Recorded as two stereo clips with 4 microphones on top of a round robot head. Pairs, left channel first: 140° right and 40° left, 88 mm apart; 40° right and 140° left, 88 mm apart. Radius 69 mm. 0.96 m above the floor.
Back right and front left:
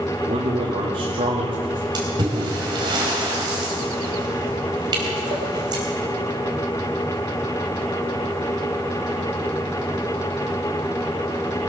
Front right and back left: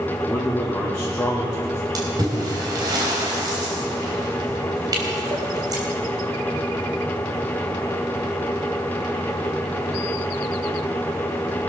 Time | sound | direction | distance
0.3 | a man speaking | 45° left | 2.5 m
1.9 | a splash | 85° left | 4 m